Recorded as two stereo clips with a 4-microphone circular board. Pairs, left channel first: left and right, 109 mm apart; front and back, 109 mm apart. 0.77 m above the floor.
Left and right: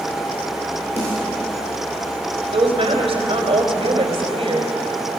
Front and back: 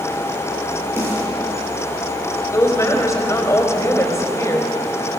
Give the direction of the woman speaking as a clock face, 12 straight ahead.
2 o'clock.